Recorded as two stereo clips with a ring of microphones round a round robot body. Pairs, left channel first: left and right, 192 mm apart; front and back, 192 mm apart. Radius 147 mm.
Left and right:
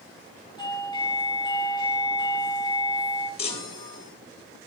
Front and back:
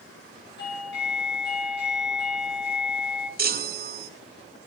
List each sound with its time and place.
0.6 s a doorbell: 25° left, 7.5 m
3.4 s a chime: 150° left, 2 m